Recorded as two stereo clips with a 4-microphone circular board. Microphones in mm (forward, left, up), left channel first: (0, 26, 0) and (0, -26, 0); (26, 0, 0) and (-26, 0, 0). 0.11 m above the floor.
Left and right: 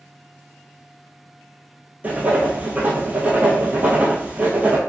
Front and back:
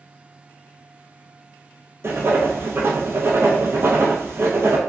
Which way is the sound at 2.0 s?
145° right.